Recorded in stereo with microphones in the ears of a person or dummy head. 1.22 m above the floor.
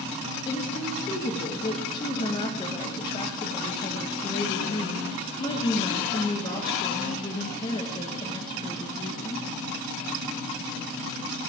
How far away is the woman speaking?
About 1.5 m.